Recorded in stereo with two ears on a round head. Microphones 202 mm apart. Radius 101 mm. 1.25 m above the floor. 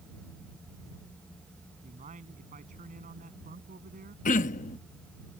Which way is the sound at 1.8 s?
35° right (ahead or behind).